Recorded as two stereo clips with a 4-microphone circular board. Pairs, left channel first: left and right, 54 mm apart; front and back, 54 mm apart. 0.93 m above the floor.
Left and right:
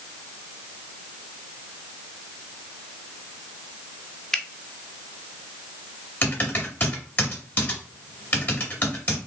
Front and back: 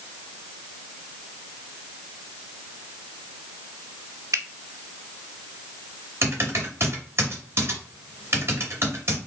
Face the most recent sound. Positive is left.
turn(degrees=140)